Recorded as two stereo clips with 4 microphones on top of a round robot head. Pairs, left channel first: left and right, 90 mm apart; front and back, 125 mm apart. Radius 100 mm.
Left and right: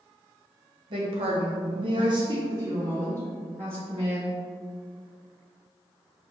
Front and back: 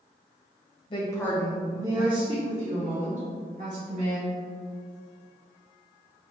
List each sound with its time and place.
0.9 s a woman speaking: 55° right, 1.1 m; by 4.4 s 155° right, 4 m